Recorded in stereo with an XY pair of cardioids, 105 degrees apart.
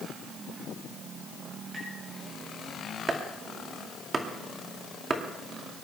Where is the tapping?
20° right, 8.5 m.